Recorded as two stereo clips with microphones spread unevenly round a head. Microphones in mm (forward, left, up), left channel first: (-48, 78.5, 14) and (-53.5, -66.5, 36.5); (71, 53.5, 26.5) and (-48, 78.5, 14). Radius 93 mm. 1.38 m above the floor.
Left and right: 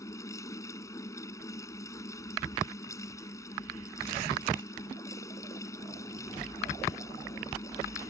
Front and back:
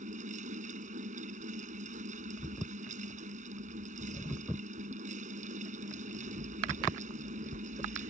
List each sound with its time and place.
0.0 s a fan: 160° left